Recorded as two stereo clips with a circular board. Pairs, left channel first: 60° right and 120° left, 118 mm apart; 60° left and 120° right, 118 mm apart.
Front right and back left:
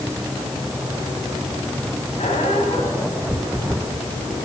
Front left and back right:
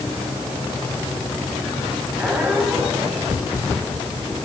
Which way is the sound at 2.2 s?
45° right.